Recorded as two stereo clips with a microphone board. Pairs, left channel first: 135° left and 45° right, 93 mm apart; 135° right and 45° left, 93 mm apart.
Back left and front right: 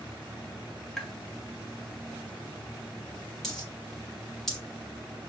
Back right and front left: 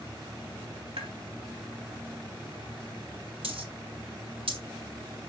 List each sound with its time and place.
1.0 s tapping: 50° left, 1.4 m
3.4 s a dropped coin: 50° left, 5 m